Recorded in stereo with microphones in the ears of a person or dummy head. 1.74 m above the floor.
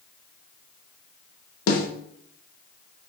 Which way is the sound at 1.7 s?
85° left.